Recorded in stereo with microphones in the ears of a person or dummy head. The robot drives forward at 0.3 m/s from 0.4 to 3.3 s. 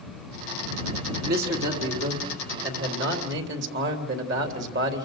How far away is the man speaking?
About 3 m.